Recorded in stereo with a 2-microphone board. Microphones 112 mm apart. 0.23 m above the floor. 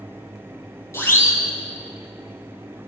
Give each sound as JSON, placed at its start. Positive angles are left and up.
{"t": 0.9, "sound": "a siren", "side_deg": 25, "distance_m": 6.0}